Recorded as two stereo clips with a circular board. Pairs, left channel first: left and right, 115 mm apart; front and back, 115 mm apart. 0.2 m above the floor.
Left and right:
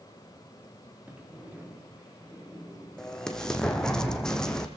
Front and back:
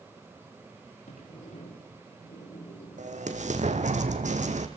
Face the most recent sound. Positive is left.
turn(degrees=175)